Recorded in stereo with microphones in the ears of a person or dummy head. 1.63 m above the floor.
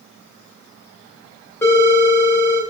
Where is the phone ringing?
15° left (ahead or behind), 1.7 m.